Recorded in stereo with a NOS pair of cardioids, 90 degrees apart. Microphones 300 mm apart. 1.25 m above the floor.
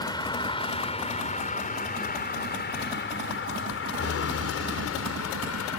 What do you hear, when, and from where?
0.0 s a vehicle: 15° left; by 5.8 s 60° left